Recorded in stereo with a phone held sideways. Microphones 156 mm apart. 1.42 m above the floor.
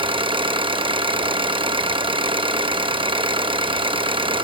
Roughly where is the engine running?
Right.